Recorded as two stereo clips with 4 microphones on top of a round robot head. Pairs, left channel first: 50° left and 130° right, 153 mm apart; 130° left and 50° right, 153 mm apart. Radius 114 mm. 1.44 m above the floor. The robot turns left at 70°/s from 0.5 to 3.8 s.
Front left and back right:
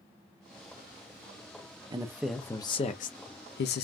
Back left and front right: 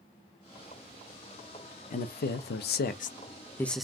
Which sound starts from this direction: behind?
A man speaking, at 1.9 s.